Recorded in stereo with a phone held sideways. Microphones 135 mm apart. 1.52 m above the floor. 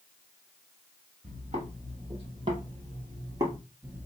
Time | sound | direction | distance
1.2 | footsteps | 45° right (ahead or behind) | 2.5 m